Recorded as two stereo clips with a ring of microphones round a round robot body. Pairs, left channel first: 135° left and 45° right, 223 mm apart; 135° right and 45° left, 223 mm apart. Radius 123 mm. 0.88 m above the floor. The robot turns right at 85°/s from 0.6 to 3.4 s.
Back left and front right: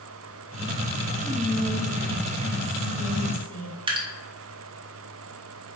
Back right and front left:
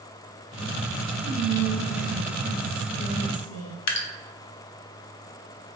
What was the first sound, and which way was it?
Whispering, 35° left.